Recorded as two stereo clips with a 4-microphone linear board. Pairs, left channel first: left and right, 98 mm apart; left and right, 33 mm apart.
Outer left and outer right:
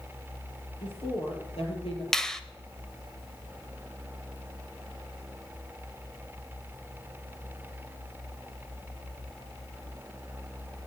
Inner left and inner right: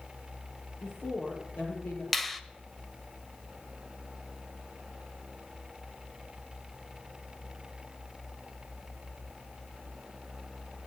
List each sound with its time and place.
0.8 s a woman speaking: 75° left (ahead or behind), 6 m
2.1 s a finger snap: 5° left (ahead or behind), 0.9 m